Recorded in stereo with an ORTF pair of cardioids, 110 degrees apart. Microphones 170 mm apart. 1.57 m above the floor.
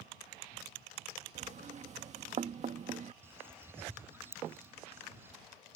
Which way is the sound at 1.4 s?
45° right.